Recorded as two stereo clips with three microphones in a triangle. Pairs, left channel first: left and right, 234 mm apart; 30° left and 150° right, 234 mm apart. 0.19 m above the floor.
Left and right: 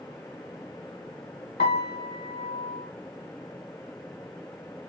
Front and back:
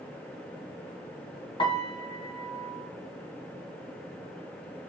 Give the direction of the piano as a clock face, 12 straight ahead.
9 o'clock.